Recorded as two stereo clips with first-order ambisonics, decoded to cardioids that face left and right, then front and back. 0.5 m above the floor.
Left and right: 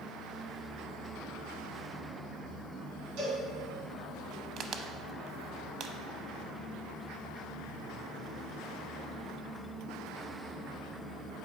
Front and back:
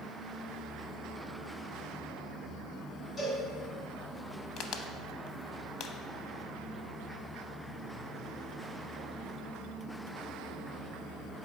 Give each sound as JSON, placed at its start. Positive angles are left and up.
{"t": 3.2, "sound": "a cowbell", "azimuth_deg": -90, "distance_m": 2.5}
{"t": 4.6, "sound": "a crack", "azimuth_deg": -45, "distance_m": 0.5}